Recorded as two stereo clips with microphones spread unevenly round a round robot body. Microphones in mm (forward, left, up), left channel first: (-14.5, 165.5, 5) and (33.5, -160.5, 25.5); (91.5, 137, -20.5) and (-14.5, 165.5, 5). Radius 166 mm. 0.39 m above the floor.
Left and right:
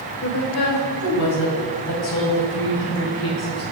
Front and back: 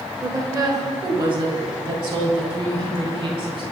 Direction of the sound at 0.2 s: 90° left.